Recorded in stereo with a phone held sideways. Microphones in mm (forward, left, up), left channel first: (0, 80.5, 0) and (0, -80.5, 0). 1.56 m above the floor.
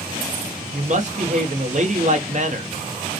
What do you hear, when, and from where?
0.7 s a woman speaking: 50° right (ahead or behind), 1.1 m